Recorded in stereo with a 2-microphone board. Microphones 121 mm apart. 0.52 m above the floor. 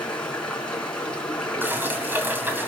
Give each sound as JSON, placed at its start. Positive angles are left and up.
{"t": 0.0, "sound": "running water", "side_deg": 10, "distance_m": 4.5}
{"t": 1.6, "sound": "dishes clattering", "side_deg": -15, "distance_m": 2.5}